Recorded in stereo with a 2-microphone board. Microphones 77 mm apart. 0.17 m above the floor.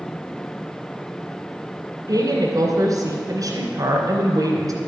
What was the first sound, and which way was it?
A woman speaking, 50° right (ahead or behind).